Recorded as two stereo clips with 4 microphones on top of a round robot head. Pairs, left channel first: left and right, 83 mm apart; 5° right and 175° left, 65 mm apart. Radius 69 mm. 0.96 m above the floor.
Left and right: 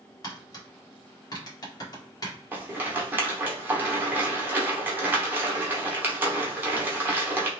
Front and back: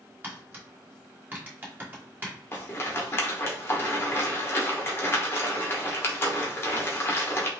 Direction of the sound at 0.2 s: 120° left.